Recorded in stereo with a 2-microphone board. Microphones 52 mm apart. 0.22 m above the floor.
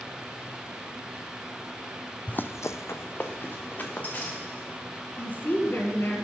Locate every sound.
2.3 s running footsteps: 30° left (ahead or behind), 0.6 m
5.2 s a woman speaking: 40° left (ahead or behind), 1.6 m